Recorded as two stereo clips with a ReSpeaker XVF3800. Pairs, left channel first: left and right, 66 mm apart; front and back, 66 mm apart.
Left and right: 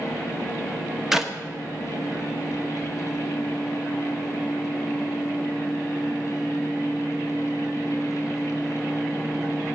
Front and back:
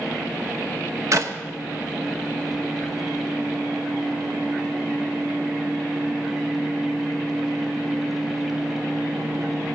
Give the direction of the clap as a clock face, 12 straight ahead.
6 o'clock.